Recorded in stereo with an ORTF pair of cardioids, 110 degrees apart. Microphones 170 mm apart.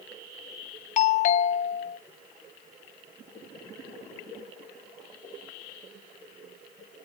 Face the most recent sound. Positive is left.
turn(degrees=45)